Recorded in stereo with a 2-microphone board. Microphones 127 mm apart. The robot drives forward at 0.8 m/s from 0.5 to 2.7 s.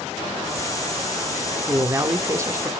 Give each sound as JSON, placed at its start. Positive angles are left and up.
{"t": 1.7, "sound": "a man speaking", "side_deg": -20, "distance_m": 0.9}